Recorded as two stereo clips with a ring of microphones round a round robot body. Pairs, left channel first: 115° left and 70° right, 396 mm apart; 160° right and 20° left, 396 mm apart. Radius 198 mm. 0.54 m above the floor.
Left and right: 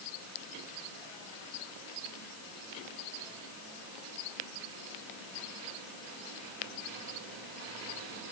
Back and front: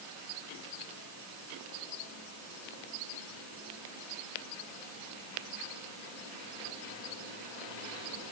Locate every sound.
Only background noise.